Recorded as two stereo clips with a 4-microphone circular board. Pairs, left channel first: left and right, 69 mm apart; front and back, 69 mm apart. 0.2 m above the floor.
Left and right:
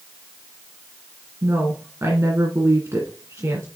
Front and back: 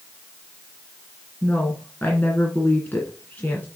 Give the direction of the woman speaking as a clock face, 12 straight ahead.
2 o'clock.